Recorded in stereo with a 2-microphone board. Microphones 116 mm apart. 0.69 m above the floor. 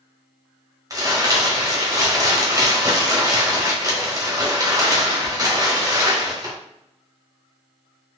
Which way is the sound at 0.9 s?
30° right (ahead or behind).